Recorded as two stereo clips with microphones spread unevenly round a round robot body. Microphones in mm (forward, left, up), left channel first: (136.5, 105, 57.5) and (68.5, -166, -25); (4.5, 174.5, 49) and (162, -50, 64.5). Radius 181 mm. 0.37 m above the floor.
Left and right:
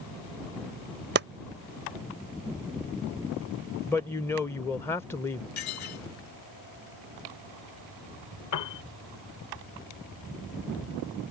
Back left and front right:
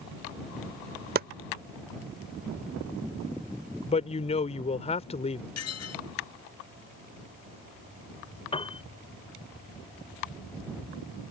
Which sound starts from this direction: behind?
A woman speaking, at 3.9 s.